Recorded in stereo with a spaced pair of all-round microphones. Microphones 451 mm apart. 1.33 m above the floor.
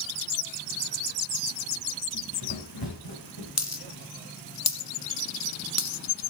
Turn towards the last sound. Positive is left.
turn(degrees=35)  # may be behind; listen again after turning